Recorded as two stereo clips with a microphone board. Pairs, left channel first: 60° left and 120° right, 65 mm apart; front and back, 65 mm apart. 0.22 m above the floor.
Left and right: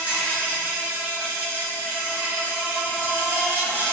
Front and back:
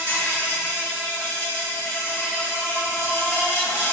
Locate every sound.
0.0 s an insect: 60° right, 1.2 m